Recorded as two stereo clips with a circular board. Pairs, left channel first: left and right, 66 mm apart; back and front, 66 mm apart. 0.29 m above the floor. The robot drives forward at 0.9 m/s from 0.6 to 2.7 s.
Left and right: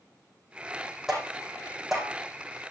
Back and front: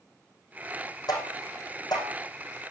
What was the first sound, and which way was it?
Tapping, 175° right.